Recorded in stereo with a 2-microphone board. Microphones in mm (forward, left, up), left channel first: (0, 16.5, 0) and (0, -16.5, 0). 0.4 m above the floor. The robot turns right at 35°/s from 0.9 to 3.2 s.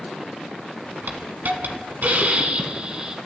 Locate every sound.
1.1 s a hiss: 100° right, 0.9 m; by 3.2 s 25° right, 0.9 m